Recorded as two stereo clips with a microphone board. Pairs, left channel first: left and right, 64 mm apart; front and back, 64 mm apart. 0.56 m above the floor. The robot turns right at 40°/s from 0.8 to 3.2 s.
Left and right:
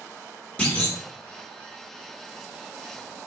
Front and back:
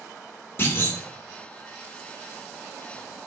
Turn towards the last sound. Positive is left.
turn(degrees=130)